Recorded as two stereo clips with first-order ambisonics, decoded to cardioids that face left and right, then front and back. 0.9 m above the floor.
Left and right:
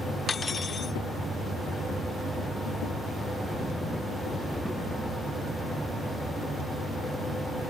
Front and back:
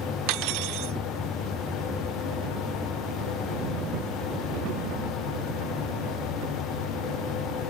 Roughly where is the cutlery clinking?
Behind.